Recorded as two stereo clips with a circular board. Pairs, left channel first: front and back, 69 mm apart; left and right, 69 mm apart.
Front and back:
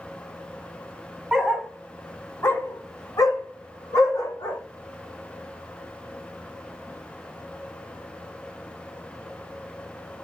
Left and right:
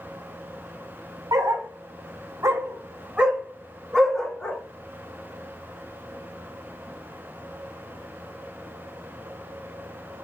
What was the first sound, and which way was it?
A dog barking, 100° right.